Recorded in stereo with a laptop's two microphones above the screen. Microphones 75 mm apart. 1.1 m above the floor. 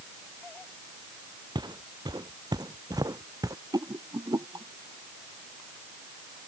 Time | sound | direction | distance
1.6 | footsteps | 80° right | ?
3.7 | a rattle | 70° right (ahead or behind) | ?